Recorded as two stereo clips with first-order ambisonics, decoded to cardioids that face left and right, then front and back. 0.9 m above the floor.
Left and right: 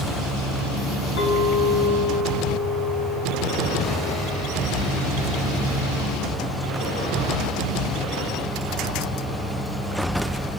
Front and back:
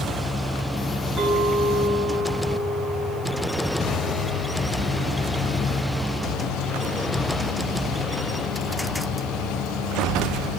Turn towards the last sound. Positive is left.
turn(degrees=95)